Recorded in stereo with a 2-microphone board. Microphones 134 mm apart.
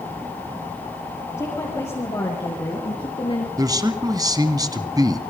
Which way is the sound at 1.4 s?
25° left (ahead or behind).